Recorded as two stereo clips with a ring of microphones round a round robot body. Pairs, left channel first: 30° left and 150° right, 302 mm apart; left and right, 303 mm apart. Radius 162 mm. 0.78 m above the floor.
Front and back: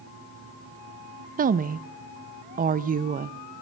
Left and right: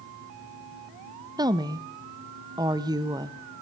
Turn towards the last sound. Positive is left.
turn(degrees=-150)